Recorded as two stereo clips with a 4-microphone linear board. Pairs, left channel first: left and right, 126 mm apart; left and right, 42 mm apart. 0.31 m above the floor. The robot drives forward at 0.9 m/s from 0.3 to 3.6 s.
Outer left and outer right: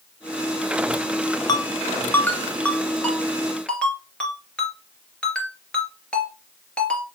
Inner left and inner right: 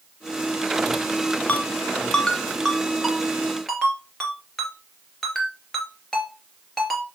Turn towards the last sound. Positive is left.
turn(degrees=10)  # may be behind; listen again after turning